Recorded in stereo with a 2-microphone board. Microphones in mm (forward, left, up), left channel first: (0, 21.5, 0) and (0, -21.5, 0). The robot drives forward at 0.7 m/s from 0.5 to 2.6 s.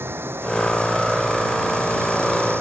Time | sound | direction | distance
0.0 | running water | 70° right (ahead or behind) | ?